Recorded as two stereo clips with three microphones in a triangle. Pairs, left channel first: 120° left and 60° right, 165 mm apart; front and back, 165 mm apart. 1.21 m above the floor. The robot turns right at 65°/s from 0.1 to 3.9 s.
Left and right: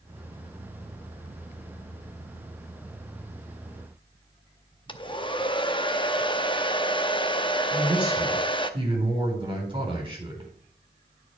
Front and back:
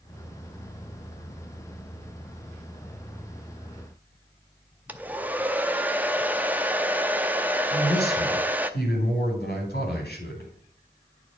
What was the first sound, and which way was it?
A hair dryer, 110° left.